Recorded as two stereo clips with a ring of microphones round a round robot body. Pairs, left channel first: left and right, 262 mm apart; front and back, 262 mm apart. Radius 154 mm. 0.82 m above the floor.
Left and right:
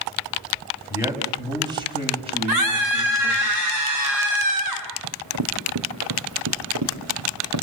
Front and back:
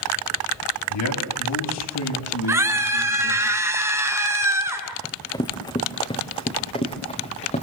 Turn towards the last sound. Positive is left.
turn(degrees=-65)